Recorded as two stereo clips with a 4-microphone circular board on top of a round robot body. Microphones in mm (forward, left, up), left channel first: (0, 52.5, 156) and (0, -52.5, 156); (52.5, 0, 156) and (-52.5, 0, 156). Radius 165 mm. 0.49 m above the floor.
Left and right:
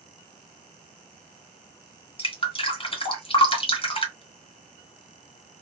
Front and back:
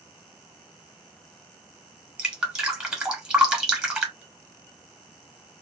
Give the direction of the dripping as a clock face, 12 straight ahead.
9 o'clock.